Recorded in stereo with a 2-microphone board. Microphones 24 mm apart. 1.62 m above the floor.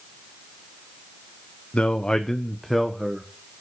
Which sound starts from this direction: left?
A man speaking, at 1.7 s.